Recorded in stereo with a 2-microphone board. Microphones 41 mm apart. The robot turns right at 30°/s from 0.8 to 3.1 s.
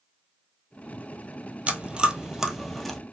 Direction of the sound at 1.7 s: 30° right (ahead or behind).